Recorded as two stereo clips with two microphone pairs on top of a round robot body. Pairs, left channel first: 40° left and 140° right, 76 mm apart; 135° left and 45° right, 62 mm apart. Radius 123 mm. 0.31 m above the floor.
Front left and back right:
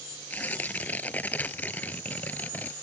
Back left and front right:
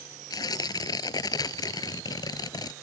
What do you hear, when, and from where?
0.3 s tearing paper: 110° left